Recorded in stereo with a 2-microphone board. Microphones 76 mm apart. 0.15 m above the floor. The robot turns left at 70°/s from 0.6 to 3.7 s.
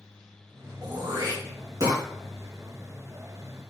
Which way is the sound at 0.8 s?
60° right (ahead or behind).